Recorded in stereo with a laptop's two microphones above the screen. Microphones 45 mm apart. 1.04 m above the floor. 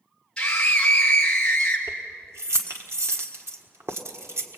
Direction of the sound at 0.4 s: 20° left (ahead or behind).